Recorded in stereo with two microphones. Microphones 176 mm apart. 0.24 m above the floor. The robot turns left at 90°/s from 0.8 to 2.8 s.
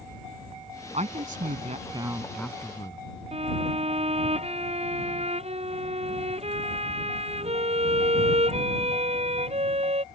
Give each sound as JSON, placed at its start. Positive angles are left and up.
{"t": 0.9, "sound": "a woman speaking", "azimuth_deg": -55}
{"t": 3.3, "sound": "a violin", "side_deg": -40}